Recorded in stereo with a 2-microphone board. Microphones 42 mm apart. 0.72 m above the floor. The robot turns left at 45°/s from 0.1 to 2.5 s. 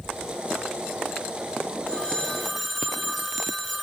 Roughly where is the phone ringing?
Left.